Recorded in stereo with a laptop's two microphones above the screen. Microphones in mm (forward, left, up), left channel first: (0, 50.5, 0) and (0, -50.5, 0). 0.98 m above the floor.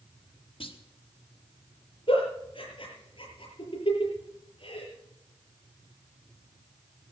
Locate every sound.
0.6 s a clunk: 65° left (ahead or behind), 1.3 m
2.1 s a giggle: 60° left (ahead or behind), 7.5 m